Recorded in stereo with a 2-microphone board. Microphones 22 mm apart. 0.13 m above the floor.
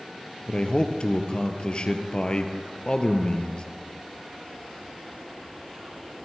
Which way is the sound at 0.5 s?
50° left (ahead or behind).